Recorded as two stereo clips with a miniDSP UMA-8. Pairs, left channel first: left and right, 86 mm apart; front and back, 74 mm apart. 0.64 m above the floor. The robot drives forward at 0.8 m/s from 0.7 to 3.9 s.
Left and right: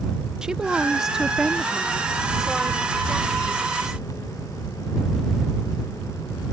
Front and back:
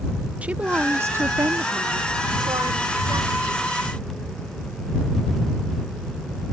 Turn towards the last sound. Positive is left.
turn(degrees=180)